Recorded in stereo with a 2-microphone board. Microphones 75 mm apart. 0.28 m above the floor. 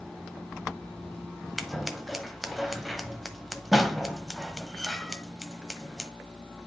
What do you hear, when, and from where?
1.6 s scissors: centre (ahead or behind), 1.0 m